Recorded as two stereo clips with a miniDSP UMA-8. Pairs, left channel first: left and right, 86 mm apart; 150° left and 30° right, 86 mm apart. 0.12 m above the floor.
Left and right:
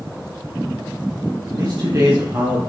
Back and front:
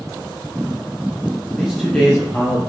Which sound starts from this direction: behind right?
A man speaking, at 1.5 s.